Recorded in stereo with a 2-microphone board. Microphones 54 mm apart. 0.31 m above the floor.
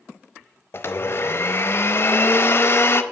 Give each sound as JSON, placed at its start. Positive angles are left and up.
{"t": 0.7, "sound": "a blender", "side_deg": 45, "distance_m": 0.5}